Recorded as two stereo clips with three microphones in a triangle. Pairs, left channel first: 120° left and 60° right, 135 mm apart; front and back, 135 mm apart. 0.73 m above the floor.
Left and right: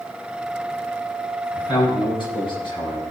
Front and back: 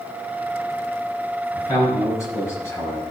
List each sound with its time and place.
1.5 s a man speaking: 65° left, 6.5 m; by 3.0 s 70° left, 4.5 m